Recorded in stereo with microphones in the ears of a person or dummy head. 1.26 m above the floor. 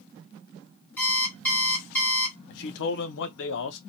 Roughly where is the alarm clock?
Centre.